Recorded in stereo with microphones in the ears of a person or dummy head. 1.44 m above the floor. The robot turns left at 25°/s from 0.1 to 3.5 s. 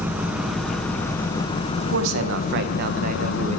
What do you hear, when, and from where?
0.0 s an engine running: 170° right, 0.9 m; by 3.6 s 105° left, 0.9 m
1.8 s a man speaking: 100° right, 1.1 m; by 3.6 s 140° right, 1.1 m